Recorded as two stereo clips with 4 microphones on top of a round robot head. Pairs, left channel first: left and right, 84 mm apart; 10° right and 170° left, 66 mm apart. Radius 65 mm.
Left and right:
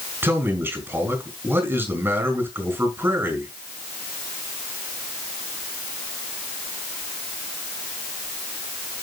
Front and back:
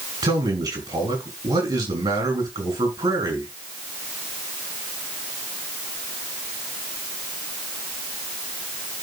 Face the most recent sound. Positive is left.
turn(degrees=-155)